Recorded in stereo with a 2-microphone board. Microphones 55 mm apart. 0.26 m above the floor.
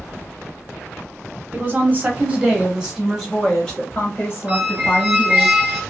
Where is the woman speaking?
35° right (ahead or behind), 1.5 m; by 5.5 s 45° left (ahead or behind), 1.7 m.